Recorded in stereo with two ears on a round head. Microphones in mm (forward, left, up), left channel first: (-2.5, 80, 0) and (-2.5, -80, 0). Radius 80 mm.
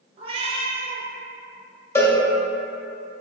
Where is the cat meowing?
30° right (ahead or behind), 0.5 m.